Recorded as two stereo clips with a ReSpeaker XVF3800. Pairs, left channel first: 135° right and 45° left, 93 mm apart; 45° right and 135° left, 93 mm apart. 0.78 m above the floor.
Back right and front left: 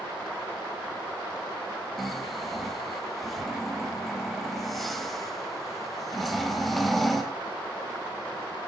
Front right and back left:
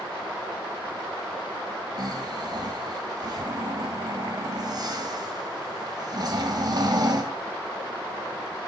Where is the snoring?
135° left, 1.1 m.